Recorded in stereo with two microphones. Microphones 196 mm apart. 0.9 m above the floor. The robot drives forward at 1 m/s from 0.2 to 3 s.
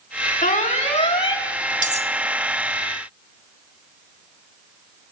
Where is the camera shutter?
I don't hear a camera shutter.